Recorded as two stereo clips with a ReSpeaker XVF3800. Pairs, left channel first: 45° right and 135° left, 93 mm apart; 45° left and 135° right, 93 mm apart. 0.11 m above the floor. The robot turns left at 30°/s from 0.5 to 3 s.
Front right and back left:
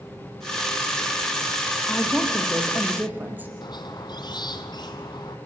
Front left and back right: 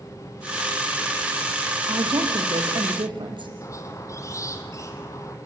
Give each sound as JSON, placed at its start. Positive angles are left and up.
{"t": 1.9, "sound": "a woman speaking", "azimuth_deg": -120, "distance_m": 3.0}
{"t": 3.6, "sound": "a squeak", "azimuth_deg": -10, "distance_m": 2.0}